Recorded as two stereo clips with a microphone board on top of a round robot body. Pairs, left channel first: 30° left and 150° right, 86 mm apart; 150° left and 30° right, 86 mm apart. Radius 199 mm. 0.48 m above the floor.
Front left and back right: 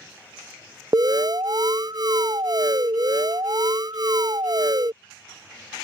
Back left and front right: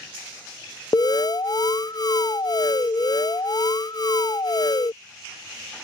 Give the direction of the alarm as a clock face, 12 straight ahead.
6 o'clock.